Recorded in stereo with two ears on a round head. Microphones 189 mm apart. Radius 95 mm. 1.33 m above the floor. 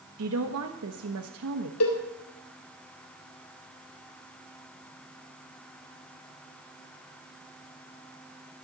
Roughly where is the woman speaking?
Right.